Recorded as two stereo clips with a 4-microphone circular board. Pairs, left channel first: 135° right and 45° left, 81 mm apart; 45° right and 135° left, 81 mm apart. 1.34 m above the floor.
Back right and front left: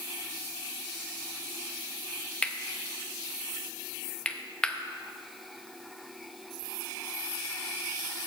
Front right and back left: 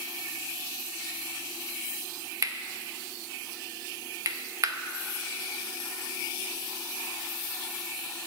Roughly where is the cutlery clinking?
Behind left.